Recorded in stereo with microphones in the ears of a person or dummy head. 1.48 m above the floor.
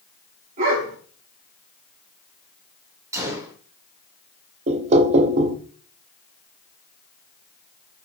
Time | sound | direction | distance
0.6 | a dog barking | 45° right (ahead or behind) | 2.5 m
3.1 | a gunshot | 15° right (ahead or behind) | 2.5 m
4.7 | knocking | 35° right (ahead or behind) | 0.5 m